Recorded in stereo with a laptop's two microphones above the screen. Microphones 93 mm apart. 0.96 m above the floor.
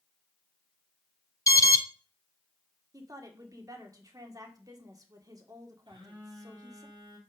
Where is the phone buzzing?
55° right (ahead or behind), 2.5 m.